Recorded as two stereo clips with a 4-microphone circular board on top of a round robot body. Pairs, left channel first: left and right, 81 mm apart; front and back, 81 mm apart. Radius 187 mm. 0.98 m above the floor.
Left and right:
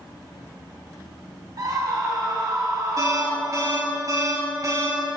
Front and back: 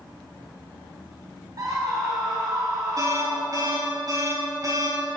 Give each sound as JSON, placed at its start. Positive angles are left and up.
{"t": 1.6, "sound": "a scream", "azimuth_deg": -135, "distance_m": 1.9}
{"t": 3.0, "sound": "an alarm", "azimuth_deg": -135, "distance_m": 4.0}